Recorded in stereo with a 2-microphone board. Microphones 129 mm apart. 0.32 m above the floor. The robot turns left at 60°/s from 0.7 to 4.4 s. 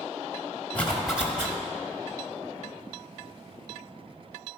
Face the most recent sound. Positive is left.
turn(degrees=155)